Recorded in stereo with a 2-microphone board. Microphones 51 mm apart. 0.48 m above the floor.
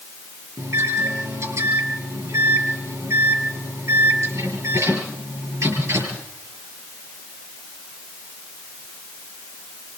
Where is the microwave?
70° right (ahead or behind), 6.5 m.